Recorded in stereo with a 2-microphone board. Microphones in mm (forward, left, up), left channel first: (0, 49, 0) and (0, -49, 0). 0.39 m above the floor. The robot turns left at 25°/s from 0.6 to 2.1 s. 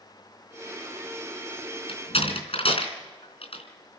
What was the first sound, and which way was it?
A door slam, 75° left (ahead or behind).